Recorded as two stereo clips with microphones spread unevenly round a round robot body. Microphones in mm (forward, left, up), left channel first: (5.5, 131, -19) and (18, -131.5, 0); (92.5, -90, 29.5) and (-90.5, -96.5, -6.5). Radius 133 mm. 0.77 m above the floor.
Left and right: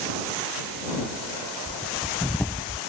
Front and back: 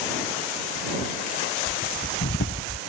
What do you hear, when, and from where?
1.7 s breathing: 5° left